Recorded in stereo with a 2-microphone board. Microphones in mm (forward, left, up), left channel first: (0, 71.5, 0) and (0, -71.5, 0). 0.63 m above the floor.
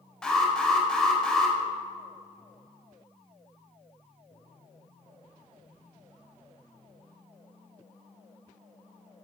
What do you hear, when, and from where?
0.2 s an alarm: 5° left (ahead or behind), 2.5 m